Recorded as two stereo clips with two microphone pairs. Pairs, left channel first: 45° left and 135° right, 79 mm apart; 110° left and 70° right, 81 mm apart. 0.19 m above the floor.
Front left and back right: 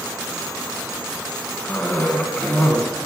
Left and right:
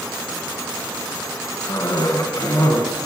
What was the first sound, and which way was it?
A cough, 105° left.